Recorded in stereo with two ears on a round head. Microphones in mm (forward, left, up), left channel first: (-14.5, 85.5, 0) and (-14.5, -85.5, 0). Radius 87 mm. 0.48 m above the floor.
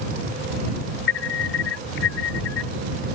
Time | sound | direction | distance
1.1 | an alarm | 70° left (ahead or behind) | ?